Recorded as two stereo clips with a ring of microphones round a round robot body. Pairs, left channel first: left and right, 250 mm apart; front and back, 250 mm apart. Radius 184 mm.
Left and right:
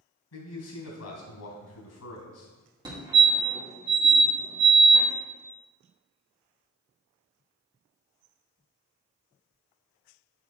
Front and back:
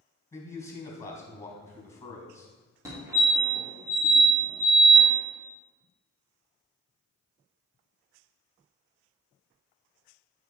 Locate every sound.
0.3 s a man speaking: 80° left, 3.5 m
2.9 s a fire alarm: 125° right, 1.9 m